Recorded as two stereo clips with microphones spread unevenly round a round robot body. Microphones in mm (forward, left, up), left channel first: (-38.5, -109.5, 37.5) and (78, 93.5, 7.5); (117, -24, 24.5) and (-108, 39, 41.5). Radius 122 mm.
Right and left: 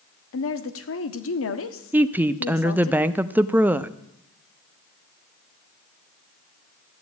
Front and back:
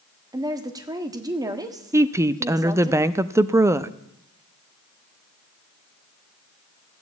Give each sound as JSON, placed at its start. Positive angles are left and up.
{"t": 0.3, "sound": "a woman speaking", "azimuth_deg": -120, "distance_m": 1.4}
{"t": 1.9, "sound": "a woman speaking", "azimuth_deg": 95, "distance_m": 0.5}